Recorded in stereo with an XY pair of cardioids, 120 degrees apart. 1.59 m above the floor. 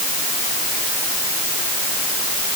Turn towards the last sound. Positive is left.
No sound to turn to.